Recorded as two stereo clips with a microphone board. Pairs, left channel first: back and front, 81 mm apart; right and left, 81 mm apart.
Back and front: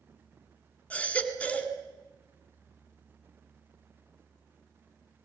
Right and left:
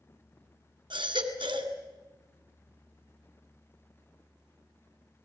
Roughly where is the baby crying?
Left.